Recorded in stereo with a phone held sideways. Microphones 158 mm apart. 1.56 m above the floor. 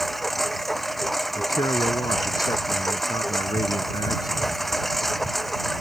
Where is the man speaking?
25° left (ahead or behind).